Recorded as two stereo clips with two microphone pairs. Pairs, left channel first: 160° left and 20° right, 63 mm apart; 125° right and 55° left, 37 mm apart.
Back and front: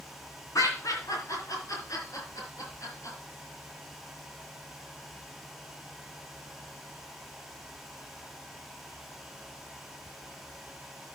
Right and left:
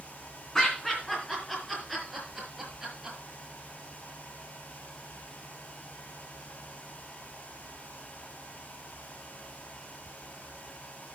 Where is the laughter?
155° left, 3 m; by 3.2 s 130° left, 5.5 m.